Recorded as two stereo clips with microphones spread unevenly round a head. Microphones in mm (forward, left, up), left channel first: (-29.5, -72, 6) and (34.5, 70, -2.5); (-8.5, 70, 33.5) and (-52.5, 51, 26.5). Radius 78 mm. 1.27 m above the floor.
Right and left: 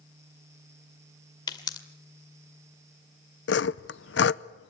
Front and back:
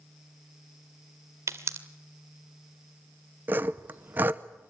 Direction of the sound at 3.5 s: 105° right.